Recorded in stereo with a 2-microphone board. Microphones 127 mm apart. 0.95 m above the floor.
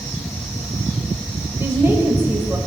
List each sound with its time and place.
1.6 s a woman speaking: 15° right (ahead or behind), 4 m